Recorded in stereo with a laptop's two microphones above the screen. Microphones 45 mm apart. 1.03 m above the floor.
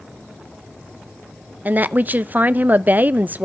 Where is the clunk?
I don't hear a clunk.